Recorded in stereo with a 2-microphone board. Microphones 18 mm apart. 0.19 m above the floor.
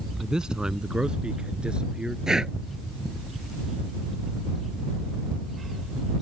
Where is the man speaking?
45° right (ahead or behind); by 2.2 s 65° right (ahead or behind).